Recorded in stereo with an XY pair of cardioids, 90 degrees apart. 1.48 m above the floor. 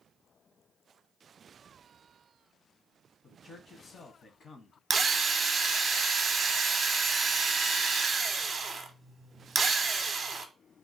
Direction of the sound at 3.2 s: 50° left.